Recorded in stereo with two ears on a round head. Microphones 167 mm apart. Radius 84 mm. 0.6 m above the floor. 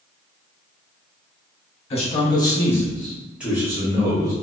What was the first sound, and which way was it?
A man speaking, 35° left (ahead or behind).